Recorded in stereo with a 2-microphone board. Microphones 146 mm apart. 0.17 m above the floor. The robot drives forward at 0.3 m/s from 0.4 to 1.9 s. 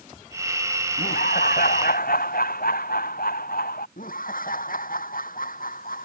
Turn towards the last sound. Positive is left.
turn(degrees=70)  # may be behind; listen again after turning